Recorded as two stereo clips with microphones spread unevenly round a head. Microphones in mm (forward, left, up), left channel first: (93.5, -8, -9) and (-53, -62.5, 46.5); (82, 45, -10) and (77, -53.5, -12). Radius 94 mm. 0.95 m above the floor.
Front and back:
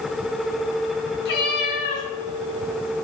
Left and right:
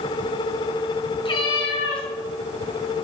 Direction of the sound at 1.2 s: 55° left.